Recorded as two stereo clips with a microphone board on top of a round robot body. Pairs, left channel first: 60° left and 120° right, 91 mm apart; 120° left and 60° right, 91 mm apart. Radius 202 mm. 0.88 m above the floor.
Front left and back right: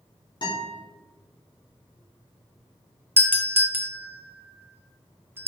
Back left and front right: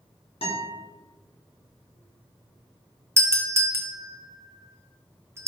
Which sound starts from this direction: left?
A guitar, at 0.4 s.